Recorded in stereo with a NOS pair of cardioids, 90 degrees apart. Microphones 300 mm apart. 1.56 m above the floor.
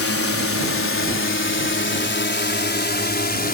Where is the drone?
50° left; by 3.5 s 30° left.